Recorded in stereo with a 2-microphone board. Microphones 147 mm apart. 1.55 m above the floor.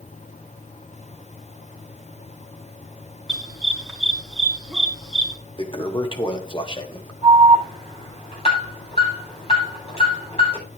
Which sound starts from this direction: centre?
A dog barking, at 3.3 s.